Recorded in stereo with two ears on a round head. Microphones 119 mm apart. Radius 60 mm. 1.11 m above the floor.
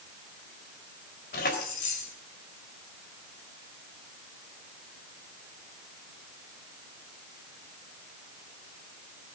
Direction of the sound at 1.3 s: 80° left.